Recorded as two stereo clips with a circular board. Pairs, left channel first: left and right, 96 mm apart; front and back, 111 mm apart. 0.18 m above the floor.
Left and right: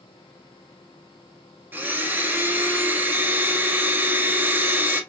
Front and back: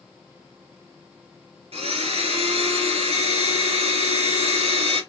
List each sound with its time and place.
1.7 s a blender: 160° right, 0.8 m